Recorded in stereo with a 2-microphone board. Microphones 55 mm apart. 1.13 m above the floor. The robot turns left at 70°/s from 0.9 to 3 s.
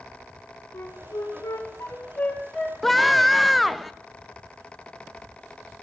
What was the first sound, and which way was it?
A flute, 55° left (ahead or behind).